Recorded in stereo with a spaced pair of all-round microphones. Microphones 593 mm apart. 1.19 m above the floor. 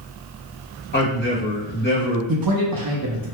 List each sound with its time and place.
0.9 s a man speaking: 15° left (ahead or behind), 1.4 m
2.3 s a man speaking: 35° right (ahead or behind), 0.8 m